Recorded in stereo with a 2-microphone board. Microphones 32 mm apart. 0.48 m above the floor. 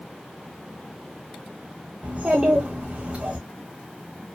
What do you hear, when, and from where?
2.0 s a child speaking: 45° right (ahead or behind), 0.7 m